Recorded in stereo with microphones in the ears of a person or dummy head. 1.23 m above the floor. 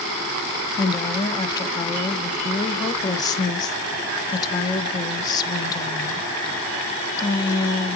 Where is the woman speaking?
20° left (ahead or behind), 0.7 m.